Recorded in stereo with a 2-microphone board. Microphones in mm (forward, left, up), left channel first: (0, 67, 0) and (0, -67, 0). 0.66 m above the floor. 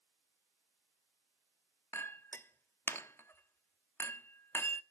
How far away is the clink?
About 0.8 m.